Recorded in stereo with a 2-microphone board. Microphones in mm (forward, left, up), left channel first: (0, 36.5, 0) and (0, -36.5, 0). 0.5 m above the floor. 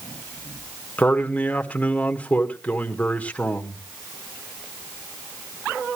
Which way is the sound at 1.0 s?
20° left (ahead or behind).